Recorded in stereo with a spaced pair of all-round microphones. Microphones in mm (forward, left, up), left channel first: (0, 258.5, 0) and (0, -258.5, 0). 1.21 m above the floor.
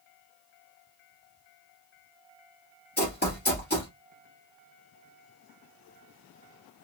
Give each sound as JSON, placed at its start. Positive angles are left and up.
{"t": 3.0, "sound": "running footsteps", "side_deg": 20, "distance_m": 1.5}